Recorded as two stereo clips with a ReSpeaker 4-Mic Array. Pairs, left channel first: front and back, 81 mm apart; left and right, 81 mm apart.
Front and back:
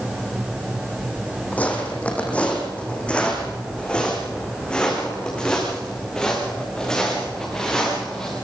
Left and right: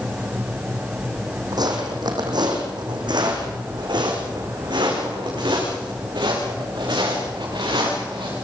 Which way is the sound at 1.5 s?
70° right.